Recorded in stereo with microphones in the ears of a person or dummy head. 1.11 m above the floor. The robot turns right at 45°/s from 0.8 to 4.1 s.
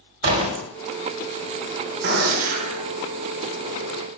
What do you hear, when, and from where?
0.2 s a door slam: 50° right (ahead or behind), 1.4 m
2.0 s a gunshot: 70° right, 0.8 m; by 2.8 s 35° right, 0.8 m